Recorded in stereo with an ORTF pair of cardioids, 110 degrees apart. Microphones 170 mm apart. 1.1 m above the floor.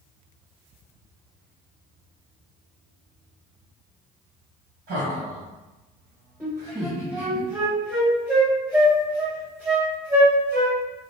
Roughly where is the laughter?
Ahead right.